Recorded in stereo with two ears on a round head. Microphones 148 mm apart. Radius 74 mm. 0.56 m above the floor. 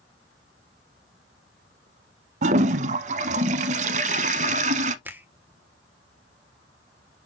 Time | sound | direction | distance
2.4 | a toilet flushing | 45° right (ahead or behind) | 0.8 m
5.0 | a finger snap | 10° right (ahead or behind) | 1.4 m